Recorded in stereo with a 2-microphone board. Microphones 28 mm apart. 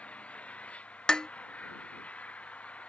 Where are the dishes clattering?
25° left (ahead or behind).